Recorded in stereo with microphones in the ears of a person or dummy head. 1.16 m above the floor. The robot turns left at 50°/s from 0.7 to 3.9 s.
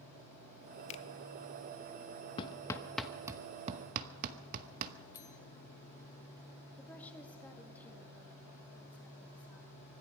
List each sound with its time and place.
0.9 s a finger snap: 35° left (ahead or behind), 0.8 m; by 1.1 s 25° left (ahead or behind), 0.8 m
2.4 s hammering: 25° left (ahead or behind), 1.0 m; by 4.9 s 50° right (ahead or behind), 1.0 m
5.1 s a bell: 15° left (ahead or behind), 0.9 m
6.8 s a woman speaking: 5° left (ahead or behind), 2 m